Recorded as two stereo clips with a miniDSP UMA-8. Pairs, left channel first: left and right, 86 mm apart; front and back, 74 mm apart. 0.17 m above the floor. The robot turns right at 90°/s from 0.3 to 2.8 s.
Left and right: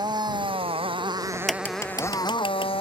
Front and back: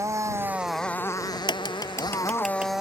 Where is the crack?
15° right; by 2.7 s 110° left.